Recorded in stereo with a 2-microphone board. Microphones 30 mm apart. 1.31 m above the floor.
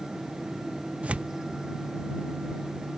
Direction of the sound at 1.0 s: 45° right (ahead or behind).